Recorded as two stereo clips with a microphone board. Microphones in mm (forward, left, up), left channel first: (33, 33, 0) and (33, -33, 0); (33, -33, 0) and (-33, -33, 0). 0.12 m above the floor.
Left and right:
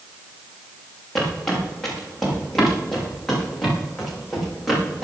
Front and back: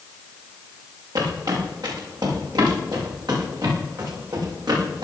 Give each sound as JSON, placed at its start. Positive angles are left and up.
{"t": 1.1, "sound": "footsteps", "azimuth_deg": 175, "distance_m": 8.0}